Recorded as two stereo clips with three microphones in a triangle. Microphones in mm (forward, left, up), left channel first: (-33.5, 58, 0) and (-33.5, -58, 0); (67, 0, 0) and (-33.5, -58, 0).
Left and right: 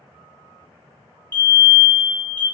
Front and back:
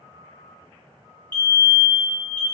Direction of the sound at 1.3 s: 60° left.